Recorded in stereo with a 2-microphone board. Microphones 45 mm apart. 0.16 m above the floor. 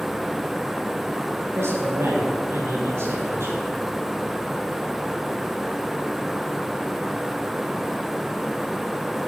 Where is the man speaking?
70° right (ahead or behind), 4 m; by 3.6 s 75° right (ahead or behind), 5.5 m.